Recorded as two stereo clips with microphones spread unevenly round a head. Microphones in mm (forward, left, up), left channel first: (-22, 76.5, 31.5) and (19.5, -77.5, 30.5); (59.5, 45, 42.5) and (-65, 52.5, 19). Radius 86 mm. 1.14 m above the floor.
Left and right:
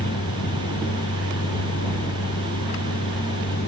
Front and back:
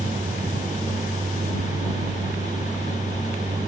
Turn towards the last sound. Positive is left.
turn(degrees=115)